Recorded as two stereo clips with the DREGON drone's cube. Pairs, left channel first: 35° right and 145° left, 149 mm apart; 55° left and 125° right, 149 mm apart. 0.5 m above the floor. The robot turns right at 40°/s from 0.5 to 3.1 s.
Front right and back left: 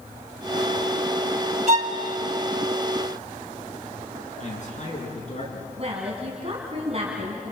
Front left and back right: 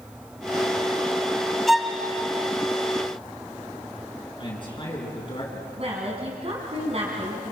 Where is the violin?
145° left, 1.6 m; by 1.9 s 155° left, 1.6 m.